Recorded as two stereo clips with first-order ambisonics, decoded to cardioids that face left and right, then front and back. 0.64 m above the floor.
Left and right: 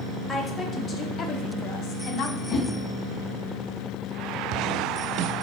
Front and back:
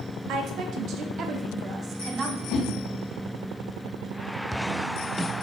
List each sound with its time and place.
0.3 s a woman speaking: 165° left, 1.2 m; by 2.4 s 115° left, 1.6 m
2.5 s a whoosh: 40° left, 4 m